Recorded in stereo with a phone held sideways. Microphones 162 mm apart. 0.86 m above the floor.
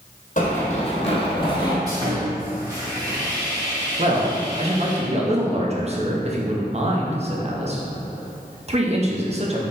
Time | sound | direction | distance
0.4 | running footsteps | 50° left (ahead or behind) | 1.5 m
1.9 | sawing | 25° right (ahead or behind) | 1.5 m
4.0 | a man speaking | 40° right (ahead or behind) | 0.7 m